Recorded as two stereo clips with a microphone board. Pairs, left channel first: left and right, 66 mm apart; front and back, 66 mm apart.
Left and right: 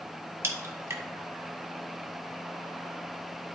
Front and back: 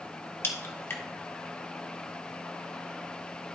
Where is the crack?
45° right, 1.3 m.